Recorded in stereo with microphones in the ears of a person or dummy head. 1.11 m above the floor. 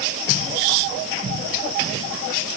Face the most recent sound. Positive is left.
No sound to turn to.